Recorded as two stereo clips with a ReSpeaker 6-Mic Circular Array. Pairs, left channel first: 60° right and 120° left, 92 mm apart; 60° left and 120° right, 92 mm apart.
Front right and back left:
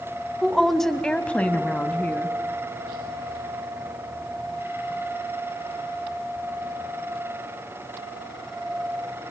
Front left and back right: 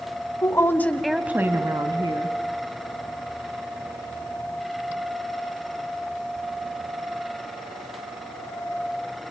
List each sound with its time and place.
0.4 s a woman speaking: 35° left, 1.4 m; by 2.4 s 130° right, 1.9 m